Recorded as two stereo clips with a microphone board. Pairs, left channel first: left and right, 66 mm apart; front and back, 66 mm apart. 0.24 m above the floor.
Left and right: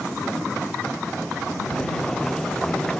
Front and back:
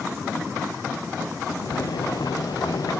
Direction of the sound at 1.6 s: 10° left.